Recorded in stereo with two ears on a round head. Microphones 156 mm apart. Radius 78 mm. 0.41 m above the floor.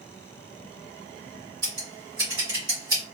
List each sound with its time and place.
1.6 s scissors: 25° right (ahead or behind), 2 m